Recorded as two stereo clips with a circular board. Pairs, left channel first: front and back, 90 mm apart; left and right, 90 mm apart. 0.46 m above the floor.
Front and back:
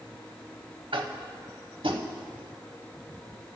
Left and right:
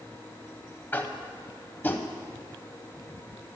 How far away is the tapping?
About 0.7 m.